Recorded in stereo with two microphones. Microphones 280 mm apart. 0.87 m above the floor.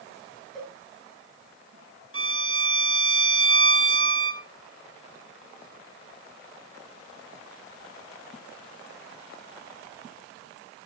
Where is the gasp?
I don't hear a gasp.